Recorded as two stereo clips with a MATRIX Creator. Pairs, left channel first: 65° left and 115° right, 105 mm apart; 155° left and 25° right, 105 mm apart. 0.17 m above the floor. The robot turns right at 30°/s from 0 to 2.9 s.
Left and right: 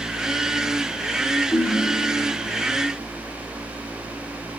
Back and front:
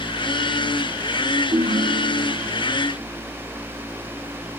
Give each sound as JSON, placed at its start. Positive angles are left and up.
{"t": 1.5, "sound": "a ringtone", "azimuth_deg": 10, "distance_m": 2.5}